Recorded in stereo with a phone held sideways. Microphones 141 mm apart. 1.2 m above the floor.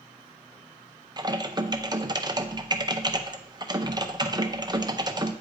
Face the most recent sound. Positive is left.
turn(degrees=-30)  # may be behind; listen again after turning